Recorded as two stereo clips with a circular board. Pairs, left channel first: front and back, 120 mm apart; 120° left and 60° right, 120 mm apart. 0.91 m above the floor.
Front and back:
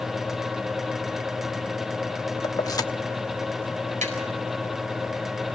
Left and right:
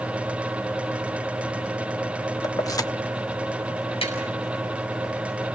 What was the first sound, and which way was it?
Keys jangling, 60° left.